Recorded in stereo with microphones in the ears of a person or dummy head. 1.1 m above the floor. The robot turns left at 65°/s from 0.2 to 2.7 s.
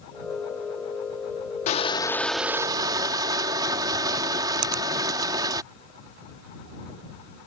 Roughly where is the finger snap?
Right.